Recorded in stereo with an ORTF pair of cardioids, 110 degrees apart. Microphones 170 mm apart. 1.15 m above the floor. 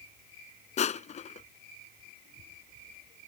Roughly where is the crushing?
Ahead left.